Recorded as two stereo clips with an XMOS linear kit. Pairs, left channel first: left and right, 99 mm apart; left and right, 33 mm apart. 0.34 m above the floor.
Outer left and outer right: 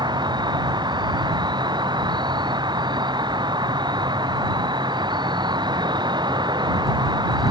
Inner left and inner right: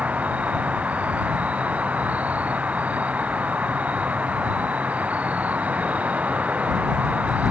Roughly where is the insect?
Right.